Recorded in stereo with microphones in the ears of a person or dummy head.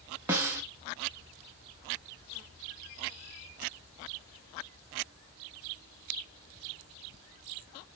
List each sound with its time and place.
0.3 s a snare drum: 10° right (ahead or behind), 0.6 m